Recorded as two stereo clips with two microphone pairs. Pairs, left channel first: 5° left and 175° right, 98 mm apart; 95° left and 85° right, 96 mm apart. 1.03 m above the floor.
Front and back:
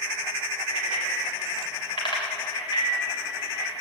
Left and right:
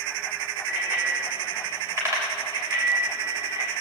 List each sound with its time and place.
0.7 s a bicycle bell: 10° right, 2.5 m; by 3.7 s 40° right, 4 m